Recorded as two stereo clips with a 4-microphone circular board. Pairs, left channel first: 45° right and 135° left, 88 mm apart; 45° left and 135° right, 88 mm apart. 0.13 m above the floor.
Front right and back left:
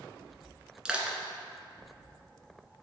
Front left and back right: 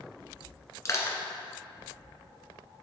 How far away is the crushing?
About 1.6 m.